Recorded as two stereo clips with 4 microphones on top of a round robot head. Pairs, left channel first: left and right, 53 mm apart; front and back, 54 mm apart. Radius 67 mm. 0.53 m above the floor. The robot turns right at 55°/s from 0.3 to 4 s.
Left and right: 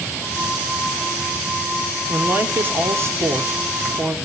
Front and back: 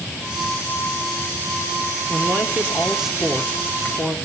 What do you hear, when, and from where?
2.1 s a woman speaking: 150° right, 1.8 m; by 4.2 s 45° right, 1.8 m